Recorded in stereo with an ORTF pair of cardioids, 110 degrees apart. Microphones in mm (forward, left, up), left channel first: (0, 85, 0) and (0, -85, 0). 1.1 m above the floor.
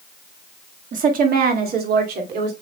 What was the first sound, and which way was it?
A woman speaking, 50° right.